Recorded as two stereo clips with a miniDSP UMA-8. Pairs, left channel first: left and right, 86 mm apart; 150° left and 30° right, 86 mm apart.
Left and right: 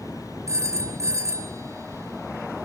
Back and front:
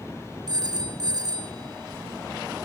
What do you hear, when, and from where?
0.5 s a phone ringing: 45° right, 1.7 m